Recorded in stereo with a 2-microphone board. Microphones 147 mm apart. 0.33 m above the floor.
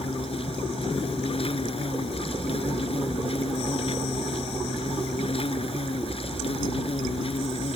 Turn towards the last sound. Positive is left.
turn(degrees=40)  # may be behind; listen again after turning